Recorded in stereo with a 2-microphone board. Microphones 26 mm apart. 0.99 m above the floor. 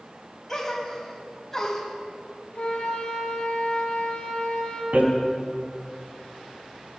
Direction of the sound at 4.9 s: 80° right.